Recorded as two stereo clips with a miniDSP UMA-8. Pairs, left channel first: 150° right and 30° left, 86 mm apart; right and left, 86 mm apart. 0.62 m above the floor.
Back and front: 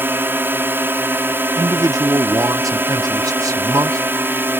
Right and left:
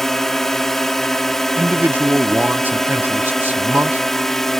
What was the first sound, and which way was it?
A drone, 10° right.